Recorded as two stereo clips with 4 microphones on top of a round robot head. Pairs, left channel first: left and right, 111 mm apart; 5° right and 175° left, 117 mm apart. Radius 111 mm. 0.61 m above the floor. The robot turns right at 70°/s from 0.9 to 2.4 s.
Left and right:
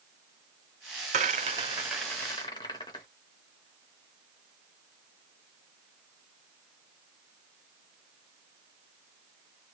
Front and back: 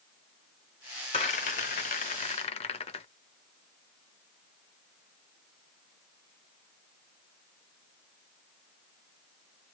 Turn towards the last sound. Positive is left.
turn(degrees=25)